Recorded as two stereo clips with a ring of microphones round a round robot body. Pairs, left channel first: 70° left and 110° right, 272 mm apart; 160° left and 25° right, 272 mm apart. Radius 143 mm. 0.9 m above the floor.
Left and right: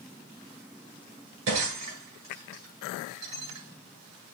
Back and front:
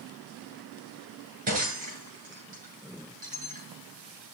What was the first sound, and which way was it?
Breaking glass, 85° right.